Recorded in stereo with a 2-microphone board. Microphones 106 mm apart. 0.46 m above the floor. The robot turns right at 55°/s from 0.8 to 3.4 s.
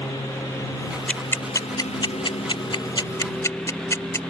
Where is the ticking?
10° left (ahead or behind); by 4.2 s 30° left (ahead or behind).